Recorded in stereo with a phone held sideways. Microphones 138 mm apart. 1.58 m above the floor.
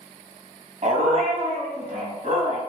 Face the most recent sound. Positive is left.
turn(degrees=-60)  # may be behind; listen again after turning